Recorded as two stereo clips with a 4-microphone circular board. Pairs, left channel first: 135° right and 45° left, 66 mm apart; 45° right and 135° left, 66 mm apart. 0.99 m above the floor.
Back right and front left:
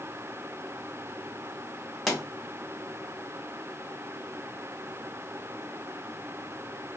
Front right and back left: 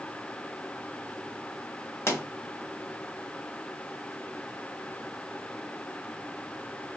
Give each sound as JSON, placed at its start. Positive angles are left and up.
{"t": 2.1, "sound": "a pop", "azimuth_deg": -45, "distance_m": 1.0}